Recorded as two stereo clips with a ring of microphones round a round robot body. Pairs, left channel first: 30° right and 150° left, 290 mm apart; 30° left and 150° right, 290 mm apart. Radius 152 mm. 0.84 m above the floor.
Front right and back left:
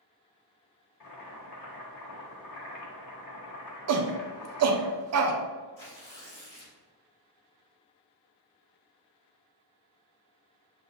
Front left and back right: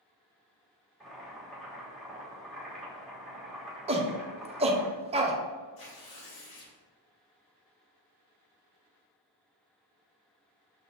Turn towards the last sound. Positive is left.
turn(degrees=25)